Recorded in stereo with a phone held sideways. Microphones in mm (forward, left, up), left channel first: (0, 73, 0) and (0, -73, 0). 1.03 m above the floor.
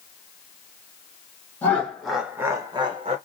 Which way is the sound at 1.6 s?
10° left (ahead or behind).